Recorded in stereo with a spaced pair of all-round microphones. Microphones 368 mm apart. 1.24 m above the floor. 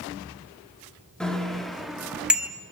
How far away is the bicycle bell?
About 2 m.